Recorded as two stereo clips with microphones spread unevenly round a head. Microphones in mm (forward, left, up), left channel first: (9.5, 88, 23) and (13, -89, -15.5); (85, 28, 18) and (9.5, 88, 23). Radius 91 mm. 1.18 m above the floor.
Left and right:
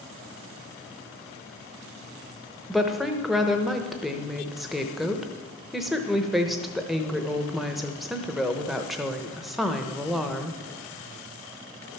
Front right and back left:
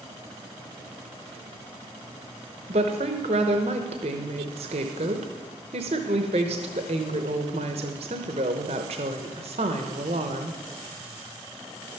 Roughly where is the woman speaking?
Behind.